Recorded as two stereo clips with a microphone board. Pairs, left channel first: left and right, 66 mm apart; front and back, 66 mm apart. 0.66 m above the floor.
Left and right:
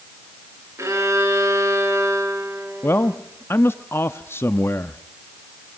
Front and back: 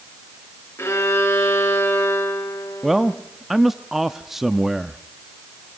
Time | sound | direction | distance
0.8 | a violin | 50° right | 3.5 m
2.8 | a man speaking | 95° left | 0.6 m